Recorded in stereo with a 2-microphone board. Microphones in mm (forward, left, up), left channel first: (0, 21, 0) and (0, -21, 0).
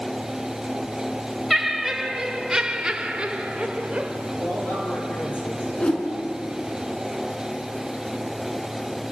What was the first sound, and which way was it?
Laughter, 5° right (ahead or behind).